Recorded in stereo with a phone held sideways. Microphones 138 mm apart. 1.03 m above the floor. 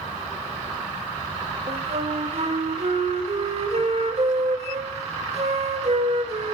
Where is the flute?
50° right (ahead or behind), 1.4 m.